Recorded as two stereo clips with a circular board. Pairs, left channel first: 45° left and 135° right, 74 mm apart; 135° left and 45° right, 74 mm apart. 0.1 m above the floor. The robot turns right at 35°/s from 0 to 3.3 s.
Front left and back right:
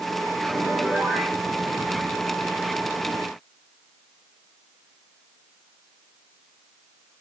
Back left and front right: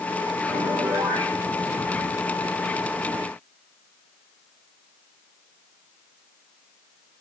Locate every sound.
0.5 s a piano: 60° right, 7 m; by 1.4 s 30° right, 7 m